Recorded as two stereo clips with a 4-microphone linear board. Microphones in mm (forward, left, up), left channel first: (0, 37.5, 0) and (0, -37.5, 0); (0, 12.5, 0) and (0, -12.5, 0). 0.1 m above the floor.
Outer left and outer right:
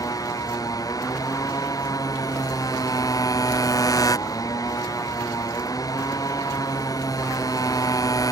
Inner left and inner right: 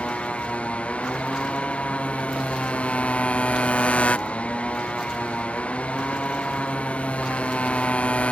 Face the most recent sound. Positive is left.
turn(degrees=50)  # may be behind; listen again after turning